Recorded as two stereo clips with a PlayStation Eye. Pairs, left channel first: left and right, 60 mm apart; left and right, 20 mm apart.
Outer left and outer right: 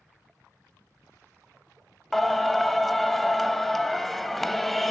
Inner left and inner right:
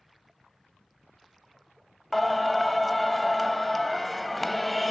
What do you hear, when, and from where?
2.1 s singing: 5° left (ahead or behind), 0.7 m